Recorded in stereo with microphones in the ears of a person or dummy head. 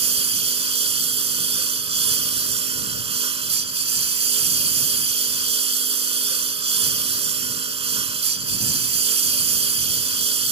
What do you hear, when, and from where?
0.0 s a lawn mower: 30° right (ahead or behind)